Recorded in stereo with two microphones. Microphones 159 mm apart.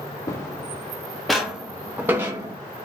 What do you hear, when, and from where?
0.3 s footsteps: 20° left (ahead or behind), 1.8 m; by 2.6 s 20° right (ahead or behind), 2.0 m